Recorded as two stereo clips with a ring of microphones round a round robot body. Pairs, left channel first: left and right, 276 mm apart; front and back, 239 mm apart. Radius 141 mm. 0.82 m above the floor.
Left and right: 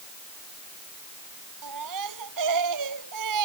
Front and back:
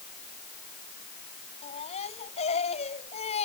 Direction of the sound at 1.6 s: 70° right.